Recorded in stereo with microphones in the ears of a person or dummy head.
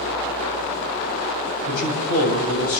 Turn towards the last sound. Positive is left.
turn(degrees=50)  # may be behind; listen again after turning